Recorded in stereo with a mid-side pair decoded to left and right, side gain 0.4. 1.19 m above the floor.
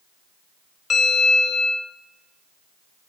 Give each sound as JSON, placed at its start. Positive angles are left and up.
{"t": 0.9, "sound": "a bell", "azimuth_deg": 50, "distance_m": 2.0}